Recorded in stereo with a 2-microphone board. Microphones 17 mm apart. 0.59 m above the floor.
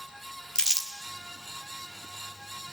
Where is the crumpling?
40° left (ahead or behind), 1.9 m.